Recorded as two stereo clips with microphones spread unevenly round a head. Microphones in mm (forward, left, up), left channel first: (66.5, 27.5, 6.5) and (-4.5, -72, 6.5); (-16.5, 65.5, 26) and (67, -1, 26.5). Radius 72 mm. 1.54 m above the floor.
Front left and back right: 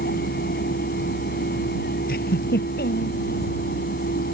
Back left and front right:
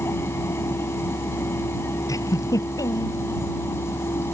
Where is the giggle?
85° left.